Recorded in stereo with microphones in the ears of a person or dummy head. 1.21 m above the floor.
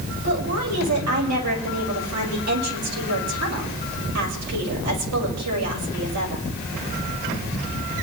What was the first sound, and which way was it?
A woman speaking, 80° right.